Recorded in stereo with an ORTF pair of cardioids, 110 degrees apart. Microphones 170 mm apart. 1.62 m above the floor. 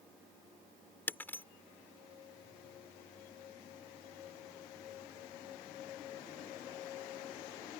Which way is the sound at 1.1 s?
10° left.